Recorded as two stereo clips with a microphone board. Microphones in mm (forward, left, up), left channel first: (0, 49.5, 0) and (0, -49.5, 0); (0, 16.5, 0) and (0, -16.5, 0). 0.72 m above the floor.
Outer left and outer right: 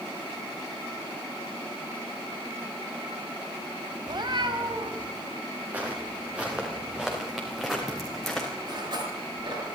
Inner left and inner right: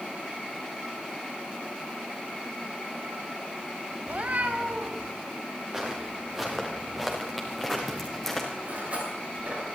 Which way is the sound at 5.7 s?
15° right (ahead or behind).